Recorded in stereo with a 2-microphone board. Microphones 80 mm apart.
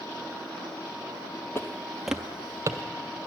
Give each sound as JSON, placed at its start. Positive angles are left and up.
{"t": 1.6, "sound": "footsteps", "side_deg": 35, "distance_m": 0.6}